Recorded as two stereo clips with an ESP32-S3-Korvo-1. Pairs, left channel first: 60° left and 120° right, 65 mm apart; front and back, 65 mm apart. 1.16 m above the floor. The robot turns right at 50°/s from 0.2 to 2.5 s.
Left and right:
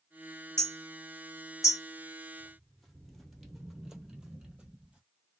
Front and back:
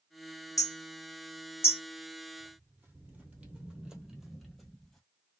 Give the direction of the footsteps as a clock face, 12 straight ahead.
7 o'clock.